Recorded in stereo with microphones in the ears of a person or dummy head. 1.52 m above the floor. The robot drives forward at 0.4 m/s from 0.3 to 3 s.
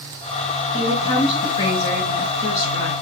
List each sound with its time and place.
0.7 s a woman speaking: 20° left (ahead or behind), 6 m; by 2.9 s 15° left (ahead or behind), 7 m